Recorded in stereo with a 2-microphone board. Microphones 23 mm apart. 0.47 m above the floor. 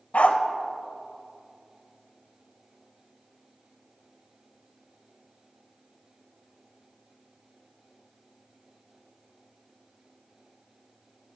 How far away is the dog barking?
About 0.8 m.